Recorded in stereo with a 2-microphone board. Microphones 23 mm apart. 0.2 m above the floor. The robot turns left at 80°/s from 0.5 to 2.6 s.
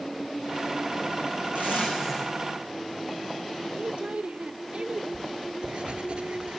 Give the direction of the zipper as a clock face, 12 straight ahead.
4 o'clock.